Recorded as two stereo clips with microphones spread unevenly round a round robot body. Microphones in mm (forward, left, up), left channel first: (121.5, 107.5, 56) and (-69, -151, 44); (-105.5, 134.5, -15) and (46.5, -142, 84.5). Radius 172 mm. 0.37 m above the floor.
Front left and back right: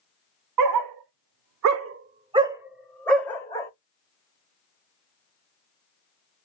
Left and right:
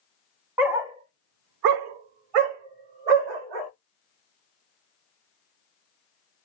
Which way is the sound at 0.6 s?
155° right.